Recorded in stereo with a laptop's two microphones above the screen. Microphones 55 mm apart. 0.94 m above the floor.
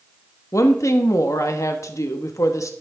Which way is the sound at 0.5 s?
70° left (ahead or behind).